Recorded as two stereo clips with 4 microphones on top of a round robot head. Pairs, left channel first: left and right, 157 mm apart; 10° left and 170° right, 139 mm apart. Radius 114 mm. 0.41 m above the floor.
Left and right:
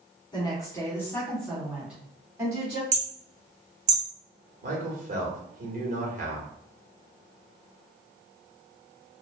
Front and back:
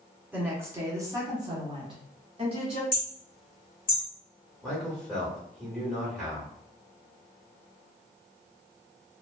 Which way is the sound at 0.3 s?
125° left.